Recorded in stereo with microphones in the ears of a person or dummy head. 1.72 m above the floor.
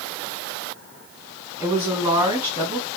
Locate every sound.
1.6 s a woman speaking: 15° right (ahead or behind), 1.5 m